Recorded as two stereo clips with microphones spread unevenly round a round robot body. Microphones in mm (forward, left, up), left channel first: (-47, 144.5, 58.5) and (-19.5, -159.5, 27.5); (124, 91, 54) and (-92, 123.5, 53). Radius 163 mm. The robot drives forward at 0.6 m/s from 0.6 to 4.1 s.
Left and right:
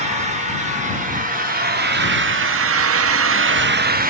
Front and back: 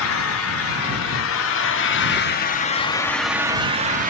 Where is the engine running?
20° right, 1.7 m; by 4.1 s 140° right, 0.9 m.